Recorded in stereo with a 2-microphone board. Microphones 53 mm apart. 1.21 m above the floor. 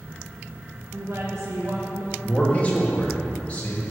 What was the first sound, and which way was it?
A woman speaking, 60° right (ahead or behind).